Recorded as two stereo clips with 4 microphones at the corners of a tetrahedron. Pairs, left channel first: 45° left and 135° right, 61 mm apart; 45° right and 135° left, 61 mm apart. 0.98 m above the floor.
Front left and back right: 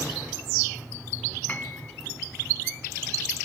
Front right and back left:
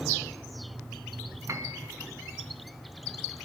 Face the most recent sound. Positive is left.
turn(degrees=105)